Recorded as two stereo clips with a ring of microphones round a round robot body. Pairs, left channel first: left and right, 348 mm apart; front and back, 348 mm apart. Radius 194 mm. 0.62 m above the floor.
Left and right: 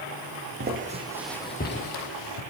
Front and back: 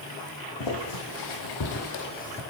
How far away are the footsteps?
About 1.9 m.